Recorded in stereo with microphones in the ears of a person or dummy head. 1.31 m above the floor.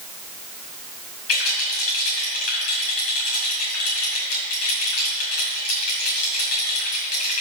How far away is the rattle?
About 5 m.